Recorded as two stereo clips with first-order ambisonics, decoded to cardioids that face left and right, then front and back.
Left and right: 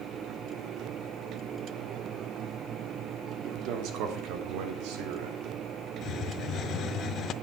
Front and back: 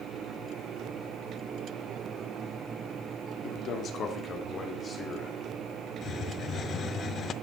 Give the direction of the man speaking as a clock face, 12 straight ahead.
2 o'clock.